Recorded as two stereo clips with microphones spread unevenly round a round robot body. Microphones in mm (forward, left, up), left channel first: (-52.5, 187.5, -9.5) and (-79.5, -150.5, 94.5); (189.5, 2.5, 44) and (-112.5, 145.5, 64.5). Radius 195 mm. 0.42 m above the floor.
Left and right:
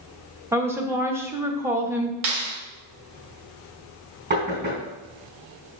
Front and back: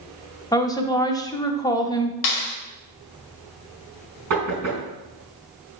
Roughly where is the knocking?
Behind right.